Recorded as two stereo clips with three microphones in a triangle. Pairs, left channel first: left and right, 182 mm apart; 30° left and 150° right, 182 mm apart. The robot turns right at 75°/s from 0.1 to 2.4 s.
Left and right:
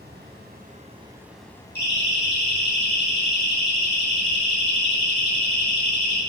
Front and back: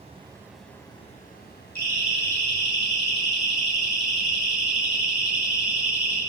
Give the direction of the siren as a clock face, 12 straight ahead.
10 o'clock.